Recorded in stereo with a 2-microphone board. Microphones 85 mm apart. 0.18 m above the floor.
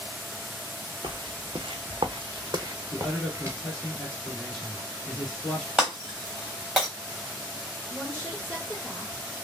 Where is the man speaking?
Centre (ahead or behind), 2 m.